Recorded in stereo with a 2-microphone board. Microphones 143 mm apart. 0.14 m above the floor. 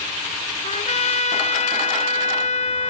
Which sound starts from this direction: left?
A trumpet, at 0.6 s.